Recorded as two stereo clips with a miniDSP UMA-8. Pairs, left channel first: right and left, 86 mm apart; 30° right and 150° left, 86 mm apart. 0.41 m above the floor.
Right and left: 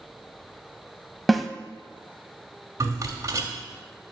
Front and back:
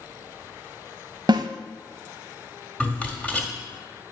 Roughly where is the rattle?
Ahead left.